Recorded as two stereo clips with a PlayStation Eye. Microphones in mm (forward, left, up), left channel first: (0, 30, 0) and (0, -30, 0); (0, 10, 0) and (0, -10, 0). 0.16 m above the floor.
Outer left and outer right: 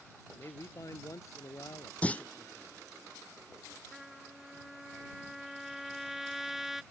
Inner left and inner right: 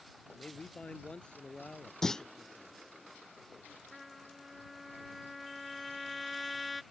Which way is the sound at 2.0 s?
20° left (ahead or behind).